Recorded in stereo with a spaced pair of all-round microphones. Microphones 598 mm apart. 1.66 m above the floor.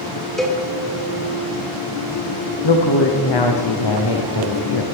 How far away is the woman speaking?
About 1.0 m.